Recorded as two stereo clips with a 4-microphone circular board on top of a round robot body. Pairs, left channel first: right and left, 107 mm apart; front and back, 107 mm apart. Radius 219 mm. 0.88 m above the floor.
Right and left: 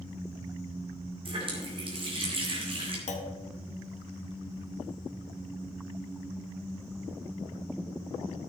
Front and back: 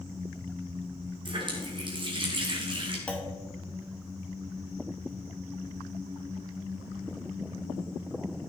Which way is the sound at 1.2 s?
130° left.